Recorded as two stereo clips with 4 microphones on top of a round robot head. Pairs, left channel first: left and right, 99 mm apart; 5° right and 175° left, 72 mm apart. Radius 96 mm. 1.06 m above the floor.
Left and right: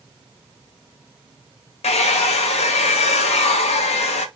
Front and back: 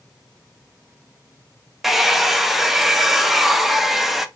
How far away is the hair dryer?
About 0.5 m.